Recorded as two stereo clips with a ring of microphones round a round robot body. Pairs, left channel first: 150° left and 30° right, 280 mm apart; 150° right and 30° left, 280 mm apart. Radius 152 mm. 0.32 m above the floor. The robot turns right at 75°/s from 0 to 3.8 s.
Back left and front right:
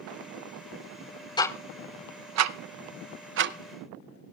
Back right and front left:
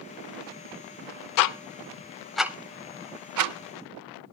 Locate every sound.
1.4 s ticking: 135° right, 0.6 m; by 4.3 s 45° left, 0.6 m